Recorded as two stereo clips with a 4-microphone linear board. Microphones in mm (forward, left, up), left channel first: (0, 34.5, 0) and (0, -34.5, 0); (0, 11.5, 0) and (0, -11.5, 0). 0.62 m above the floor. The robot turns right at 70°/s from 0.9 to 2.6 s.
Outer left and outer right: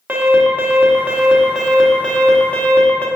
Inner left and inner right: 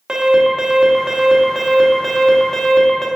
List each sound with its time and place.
0.1 s an alarm: 25° right (ahead or behind), 1.2 m; by 3.1 s 25° left (ahead or behind), 1.2 m